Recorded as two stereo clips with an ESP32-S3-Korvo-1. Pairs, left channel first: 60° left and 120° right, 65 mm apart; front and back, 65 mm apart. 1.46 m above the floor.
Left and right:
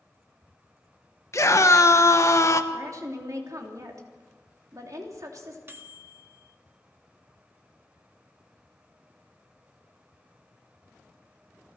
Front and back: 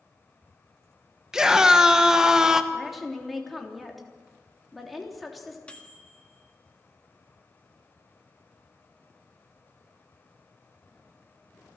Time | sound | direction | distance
1.3 | a scream | 100° left | 1.4 m
2.7 | a woman speaking | 90° right | 3 m
5.7 | a microwave | 70° right | 1.7 m